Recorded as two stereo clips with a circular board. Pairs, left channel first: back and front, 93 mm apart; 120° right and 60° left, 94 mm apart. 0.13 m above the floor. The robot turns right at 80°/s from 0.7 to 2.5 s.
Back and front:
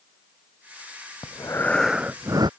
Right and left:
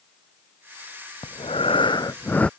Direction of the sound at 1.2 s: 140° right.